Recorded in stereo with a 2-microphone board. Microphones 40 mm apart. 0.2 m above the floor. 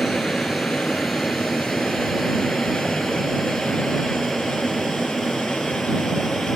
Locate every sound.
0.0 s an aircraft: centre (ahead or behind)